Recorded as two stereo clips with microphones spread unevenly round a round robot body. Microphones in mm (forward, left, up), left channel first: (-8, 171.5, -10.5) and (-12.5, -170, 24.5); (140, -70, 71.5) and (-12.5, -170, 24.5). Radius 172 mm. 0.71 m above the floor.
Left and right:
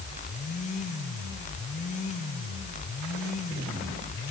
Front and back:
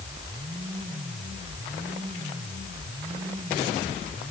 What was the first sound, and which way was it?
Only background noise.